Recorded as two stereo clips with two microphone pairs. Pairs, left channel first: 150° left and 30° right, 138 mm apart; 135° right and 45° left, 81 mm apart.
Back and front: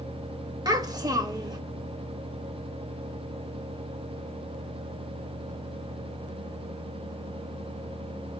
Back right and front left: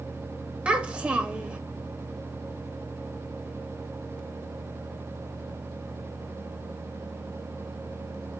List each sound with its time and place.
0.7 s a child speaking: 10° right, 0.7 m